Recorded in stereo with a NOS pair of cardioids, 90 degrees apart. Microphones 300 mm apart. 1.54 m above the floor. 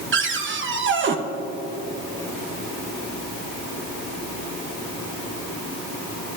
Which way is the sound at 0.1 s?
40° right.